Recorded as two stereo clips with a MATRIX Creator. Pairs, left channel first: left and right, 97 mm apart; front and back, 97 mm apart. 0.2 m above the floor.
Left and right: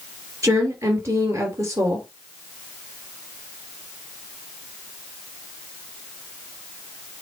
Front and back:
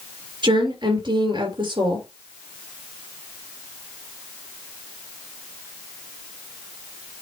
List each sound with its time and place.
0.4 s a woman speaking: 150° right, 3 m